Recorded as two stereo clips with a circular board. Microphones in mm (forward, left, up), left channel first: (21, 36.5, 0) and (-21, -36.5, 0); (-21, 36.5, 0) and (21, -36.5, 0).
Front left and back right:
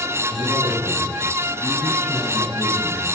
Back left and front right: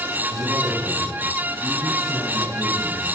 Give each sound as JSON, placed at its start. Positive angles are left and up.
{"t": 0.3, "sound": "a man speaking", "azimuth_deg": -20, "distance_m": 7.0}